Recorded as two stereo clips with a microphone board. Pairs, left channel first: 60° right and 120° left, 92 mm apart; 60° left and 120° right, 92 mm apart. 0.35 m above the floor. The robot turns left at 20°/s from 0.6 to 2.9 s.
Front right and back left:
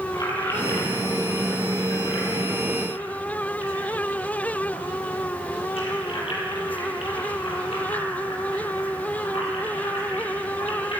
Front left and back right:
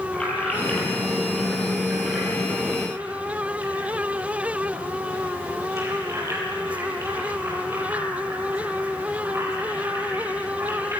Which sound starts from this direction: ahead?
Keys jangling, at 0.1 s.